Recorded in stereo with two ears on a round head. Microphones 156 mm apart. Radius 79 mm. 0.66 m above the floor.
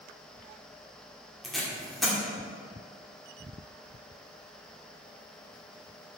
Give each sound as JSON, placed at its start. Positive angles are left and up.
{"t": 1.4, "sound": "tape being pulled", "side_deg": 0, "distance_m": 1.9}